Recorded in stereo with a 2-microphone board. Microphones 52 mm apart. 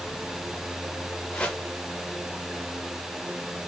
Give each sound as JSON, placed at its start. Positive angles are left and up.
{"t": 1.3, "sound": "a whoosh", "side_deg": 20, "distance_m": 0.8}